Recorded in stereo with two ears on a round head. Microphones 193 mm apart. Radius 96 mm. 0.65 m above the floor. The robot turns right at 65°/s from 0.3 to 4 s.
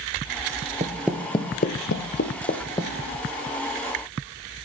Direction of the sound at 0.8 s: 30° right (ahead or behind).